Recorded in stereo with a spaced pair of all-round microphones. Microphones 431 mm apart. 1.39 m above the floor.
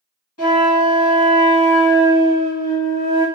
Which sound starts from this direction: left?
A flute, at 0.4 s.